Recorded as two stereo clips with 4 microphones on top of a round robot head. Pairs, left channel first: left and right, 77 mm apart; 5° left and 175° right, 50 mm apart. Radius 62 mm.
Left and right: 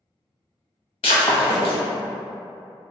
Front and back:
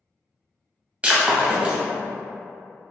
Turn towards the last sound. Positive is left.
turn(degrees=120)